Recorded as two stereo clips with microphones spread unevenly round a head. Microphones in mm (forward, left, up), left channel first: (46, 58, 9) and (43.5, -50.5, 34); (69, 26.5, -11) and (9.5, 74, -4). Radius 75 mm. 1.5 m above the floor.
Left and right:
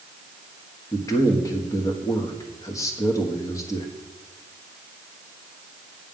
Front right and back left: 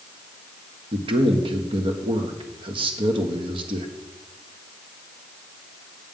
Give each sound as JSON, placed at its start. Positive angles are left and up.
{"t": 0.9, "sound": "a man speaking", "azimuth_deg": 150, "distance_m": 1.3}